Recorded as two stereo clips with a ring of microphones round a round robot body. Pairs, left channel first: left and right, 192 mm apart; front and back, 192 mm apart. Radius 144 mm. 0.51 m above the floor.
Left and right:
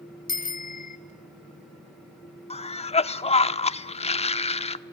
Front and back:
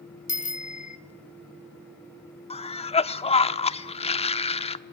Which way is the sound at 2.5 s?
45° left.